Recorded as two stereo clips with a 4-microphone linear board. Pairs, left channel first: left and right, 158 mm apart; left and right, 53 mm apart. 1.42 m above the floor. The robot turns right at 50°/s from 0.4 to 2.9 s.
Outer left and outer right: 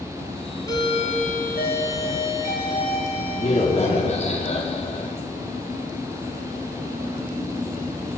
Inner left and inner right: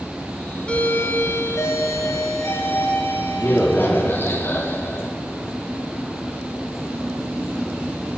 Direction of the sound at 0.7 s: 25° left.